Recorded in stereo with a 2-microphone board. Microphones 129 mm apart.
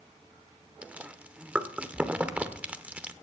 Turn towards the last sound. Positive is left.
turn(degrees=-10)  # may be behind; listen again after turning